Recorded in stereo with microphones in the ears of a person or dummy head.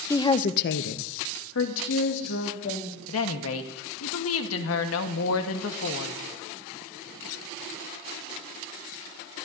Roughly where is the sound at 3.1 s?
Left.